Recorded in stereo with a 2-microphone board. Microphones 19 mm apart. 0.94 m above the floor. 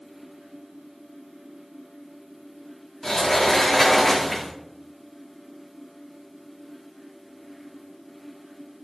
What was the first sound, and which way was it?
A sliding door, 25° left (ahead or behind).